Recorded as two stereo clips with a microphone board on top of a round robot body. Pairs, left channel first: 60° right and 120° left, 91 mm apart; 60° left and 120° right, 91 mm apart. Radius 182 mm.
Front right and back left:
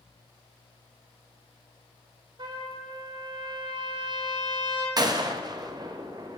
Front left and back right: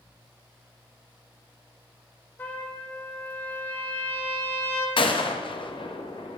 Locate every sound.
2.4 s a trumpet: 125° left, 2 m
5.0 s a gunshot: 80° left, 1.1 m